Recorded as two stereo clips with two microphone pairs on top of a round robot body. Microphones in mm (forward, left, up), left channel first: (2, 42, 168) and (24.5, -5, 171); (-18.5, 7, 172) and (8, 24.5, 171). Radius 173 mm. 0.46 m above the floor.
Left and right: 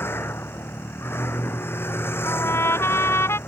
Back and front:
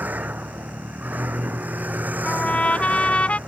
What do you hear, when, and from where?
0.0 s a vehicle: 70° left
2.2 s a trumpet: 160° left